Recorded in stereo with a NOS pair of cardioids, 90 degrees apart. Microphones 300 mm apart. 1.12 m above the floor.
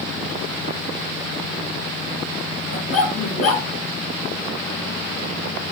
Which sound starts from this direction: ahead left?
A dog barking, at 2.7 s.